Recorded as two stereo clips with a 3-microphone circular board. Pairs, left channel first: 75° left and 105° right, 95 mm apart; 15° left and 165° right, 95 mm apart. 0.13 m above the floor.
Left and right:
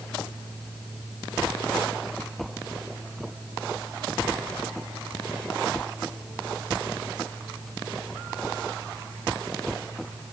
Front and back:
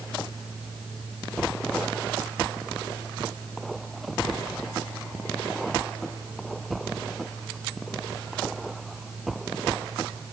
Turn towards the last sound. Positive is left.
No sound to turn to.